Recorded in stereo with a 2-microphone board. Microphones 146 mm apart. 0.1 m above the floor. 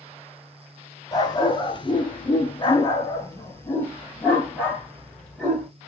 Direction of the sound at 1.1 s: 25° left (ahead or behind).